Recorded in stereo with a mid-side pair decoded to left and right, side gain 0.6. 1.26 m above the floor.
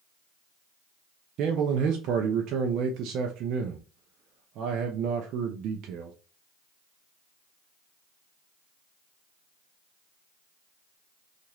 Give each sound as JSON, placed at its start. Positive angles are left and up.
{"t": 1.4, "sound": "a man speaking", "azimuth_deg": -65, "distance_m": 0.6}